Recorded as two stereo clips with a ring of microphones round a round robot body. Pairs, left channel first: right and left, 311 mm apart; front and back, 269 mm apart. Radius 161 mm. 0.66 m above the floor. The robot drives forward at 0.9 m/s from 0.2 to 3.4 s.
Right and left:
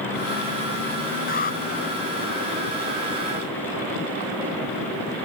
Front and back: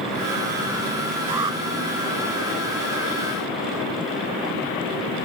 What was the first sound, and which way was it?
An alarm, 155° right.